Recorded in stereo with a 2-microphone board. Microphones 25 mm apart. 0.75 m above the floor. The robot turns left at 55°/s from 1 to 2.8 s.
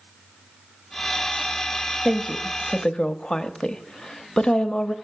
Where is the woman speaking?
5° left (ahead or behind), 0.7 m; by 5.0 s 35° left (ahead or behind), 0.7 m.